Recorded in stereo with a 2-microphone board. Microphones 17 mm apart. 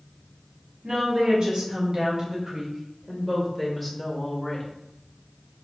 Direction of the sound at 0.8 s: 60° right (ahead or behind).